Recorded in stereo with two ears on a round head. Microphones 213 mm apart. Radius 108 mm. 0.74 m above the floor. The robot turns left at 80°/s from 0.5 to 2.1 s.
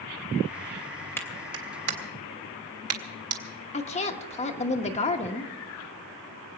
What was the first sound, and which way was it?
A clap, 10° left (ahead or behind).